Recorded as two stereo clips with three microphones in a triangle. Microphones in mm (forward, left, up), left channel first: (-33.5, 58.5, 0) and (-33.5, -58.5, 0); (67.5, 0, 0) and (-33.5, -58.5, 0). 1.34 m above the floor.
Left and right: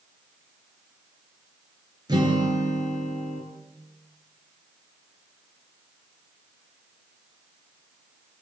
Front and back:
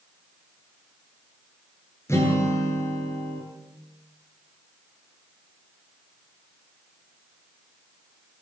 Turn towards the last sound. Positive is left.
turn(degrees=-35)